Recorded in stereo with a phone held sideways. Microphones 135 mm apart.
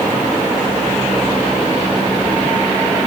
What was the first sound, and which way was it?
Only background noise.